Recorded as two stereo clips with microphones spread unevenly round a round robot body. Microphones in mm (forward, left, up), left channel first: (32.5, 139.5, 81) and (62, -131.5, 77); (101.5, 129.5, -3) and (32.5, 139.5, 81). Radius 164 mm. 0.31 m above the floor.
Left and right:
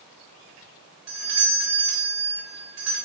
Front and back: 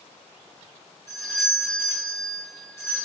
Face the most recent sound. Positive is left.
turn(degrees=-100)